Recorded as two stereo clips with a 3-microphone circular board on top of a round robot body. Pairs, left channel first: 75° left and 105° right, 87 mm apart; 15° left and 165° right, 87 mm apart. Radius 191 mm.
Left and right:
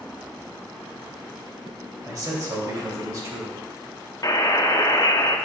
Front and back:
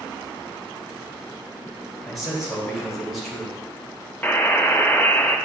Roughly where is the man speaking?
Right.